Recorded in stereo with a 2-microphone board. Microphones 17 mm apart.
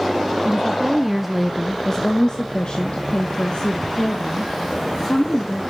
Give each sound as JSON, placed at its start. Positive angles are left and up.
{"t": 0.5, "sound": "a woman speaking", "side_deg": -30, "distance_m": 1.1}